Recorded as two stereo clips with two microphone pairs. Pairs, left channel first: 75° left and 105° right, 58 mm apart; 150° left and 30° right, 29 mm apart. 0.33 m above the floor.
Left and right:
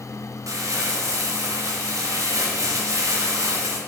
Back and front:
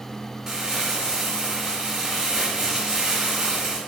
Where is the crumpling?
95° right, 2.5 m.